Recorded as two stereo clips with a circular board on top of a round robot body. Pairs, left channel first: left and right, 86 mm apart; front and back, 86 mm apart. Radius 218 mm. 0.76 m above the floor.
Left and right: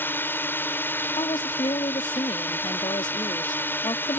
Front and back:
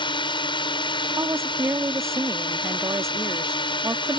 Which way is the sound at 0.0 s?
25° left.